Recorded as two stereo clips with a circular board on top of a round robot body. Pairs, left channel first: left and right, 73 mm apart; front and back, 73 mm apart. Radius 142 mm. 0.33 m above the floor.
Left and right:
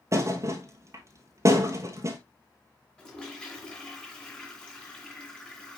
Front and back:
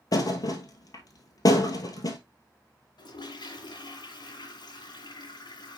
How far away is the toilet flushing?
About 2 m.